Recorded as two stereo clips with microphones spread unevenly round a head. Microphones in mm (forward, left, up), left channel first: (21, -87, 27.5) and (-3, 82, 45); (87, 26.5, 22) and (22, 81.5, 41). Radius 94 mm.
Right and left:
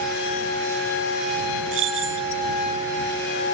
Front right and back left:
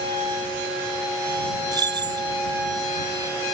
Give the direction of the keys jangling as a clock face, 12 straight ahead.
8 o'clock.